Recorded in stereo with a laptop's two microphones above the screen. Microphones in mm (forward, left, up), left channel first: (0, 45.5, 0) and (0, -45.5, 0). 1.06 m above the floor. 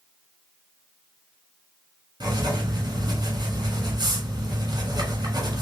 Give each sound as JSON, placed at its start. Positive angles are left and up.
{"t": 2.2, "sound": "writing", "side_deg": -55, "distance_m": 1.7}